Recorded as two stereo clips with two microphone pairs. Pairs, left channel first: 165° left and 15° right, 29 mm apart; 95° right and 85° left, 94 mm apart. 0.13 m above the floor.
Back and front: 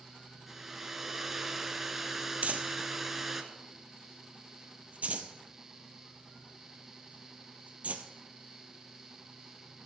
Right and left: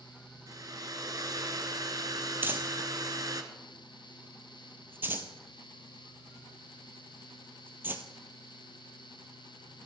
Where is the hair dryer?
65° left, 1.3 m.